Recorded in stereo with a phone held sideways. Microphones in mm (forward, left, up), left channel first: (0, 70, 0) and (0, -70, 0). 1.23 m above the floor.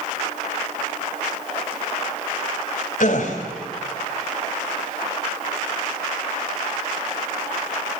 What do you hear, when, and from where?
3.0 s a gasp: 60° left (ahead or behind), 2.5 m